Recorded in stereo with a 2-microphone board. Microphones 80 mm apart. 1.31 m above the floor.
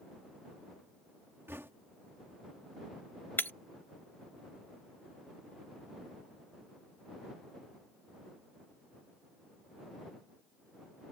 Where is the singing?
I don't hear singing.